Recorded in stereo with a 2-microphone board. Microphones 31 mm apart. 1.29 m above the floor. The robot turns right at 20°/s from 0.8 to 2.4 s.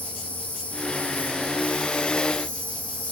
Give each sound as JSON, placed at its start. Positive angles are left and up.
{"t": 0.0, "sound": "an insect", "azimuth_deg": 70, "distance_m": 4.0}